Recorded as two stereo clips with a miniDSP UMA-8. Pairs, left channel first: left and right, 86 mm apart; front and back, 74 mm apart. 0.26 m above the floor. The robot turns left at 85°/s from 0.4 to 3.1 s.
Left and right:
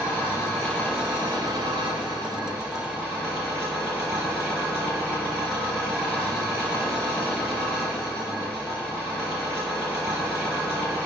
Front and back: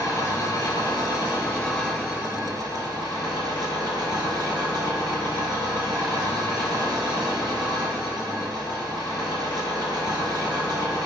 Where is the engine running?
30° left, 4 m; by 11.1 s 160° left, 4 m.